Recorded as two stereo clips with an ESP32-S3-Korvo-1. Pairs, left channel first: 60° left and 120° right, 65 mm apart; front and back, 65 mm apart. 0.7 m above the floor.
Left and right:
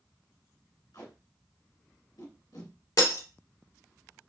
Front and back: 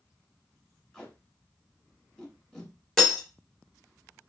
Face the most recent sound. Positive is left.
turn(degrees=85)